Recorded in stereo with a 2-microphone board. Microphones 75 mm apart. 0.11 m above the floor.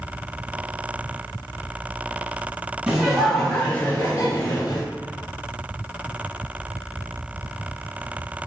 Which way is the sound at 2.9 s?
15° right (ahead or behind).